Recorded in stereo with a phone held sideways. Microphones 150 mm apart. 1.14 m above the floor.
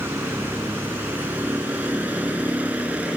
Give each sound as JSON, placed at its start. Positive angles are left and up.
{"t": 0.0, "sound": "a vehicle", "side_deg": -15}